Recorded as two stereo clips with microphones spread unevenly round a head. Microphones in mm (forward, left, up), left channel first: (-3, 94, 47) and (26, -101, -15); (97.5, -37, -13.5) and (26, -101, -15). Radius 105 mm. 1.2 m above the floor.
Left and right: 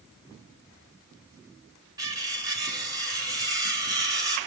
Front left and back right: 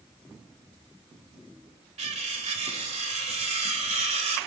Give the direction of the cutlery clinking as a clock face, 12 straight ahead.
5 o'clock.